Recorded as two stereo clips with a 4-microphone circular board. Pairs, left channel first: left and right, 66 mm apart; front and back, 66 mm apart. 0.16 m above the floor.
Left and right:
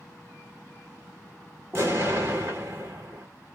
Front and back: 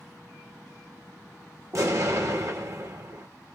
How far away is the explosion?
About 1.5 m.